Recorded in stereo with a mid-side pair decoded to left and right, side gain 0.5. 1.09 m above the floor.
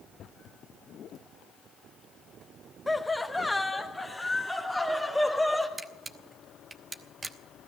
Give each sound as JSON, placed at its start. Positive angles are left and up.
{"t": 2.9, "sound": "laughter", "azimuth_deg": 10, "distance_m": 0.7}
{"t": 5.8, "sound": "a camera shutter", "azimuth_deg": -30, "distance_m": 1.0}